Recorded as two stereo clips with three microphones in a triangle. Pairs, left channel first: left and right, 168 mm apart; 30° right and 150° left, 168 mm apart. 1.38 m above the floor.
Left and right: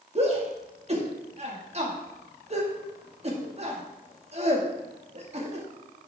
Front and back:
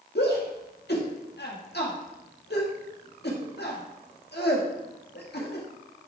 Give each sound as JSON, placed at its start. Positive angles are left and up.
{"t": 0.1, "sound": "a shout", "azimuth_deg": -40, "distance_m": 2.0}